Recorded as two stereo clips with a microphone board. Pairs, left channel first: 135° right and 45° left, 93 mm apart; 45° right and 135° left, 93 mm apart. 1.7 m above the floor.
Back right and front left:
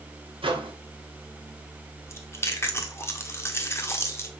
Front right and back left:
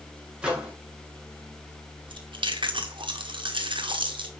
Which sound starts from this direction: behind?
Chewing, at 2.1 s.